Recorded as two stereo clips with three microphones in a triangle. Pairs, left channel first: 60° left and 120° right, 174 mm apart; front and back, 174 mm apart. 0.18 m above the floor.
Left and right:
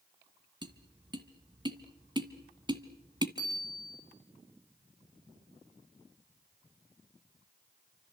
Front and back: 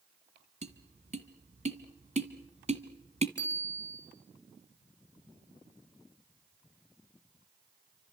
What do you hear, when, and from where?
0.6 s tapping: 170° right, 1.9 m
3.4 s a bicycle bell: 175° left, 7.5 m